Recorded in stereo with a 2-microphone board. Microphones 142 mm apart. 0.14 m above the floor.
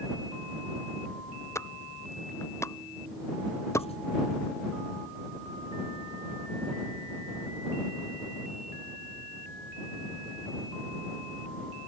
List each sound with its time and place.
1.6 s a pop: 20° left (ahead or behind)
3.8 s writing: 45° left (ahead or behind)